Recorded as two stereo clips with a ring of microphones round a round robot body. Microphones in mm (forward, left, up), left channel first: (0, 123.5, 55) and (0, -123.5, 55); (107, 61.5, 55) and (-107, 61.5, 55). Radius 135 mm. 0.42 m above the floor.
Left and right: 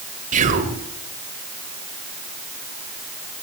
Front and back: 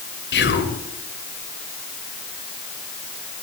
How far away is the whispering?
About 1.5 m.